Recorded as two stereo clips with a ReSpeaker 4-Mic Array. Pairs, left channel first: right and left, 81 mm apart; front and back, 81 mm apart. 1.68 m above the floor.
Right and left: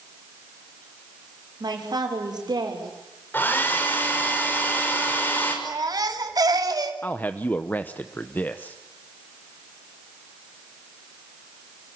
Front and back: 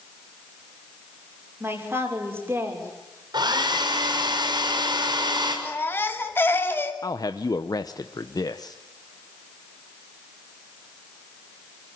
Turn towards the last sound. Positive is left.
turn(degrees=-25)